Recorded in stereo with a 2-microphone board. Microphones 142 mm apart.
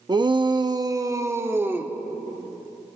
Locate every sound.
0.1 s a shout: 30° right (ahead or behind), 0.8 m; by 1.9 s 15° right (ahead or behind), 1.8 m